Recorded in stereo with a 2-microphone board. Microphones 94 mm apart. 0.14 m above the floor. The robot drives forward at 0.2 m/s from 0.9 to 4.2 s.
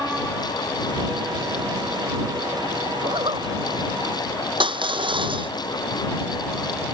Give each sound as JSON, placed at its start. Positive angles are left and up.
{"t": 3.0, "sound": "a zipper", "side_deg": -85}
{"t": 4.6, "sound": "crushing", "side_deg": -70}